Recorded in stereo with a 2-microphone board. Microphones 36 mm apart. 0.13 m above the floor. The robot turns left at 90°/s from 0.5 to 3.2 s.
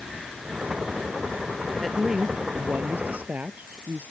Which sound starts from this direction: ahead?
A woman speaking, at 1.8 s.